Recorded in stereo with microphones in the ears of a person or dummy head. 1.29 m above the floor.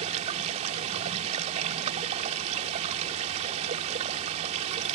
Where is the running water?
40° right (ahead or behind).